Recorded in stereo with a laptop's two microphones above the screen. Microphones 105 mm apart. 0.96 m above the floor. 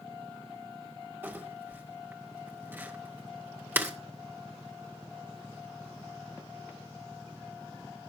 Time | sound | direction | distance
1.2 | crumpling | 20° right (ahead or behind) | 1.8 m